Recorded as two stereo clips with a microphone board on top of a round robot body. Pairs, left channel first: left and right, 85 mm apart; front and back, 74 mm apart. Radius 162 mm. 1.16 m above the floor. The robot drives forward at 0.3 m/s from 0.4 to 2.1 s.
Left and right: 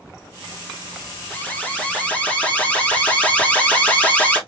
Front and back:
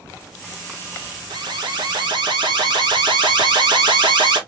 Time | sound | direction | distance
1.3 | an alarm | 165° left | 1.3 m